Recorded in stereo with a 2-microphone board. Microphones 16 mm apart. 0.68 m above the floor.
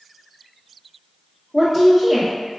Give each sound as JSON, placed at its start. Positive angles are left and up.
{"t": 1.5, "sound": "a woman speaking", "side_deg": 15, "distance_m": 1.1}